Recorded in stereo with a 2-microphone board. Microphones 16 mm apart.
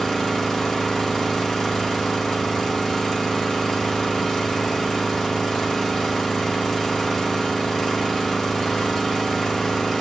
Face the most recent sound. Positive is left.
turn(degrees=30)  # may be behind; listen again after turning